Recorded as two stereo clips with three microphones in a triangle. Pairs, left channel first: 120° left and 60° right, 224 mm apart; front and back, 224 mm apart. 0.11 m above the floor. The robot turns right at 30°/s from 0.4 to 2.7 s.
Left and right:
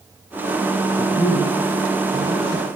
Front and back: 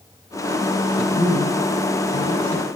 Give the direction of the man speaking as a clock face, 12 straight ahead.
1 o'clock.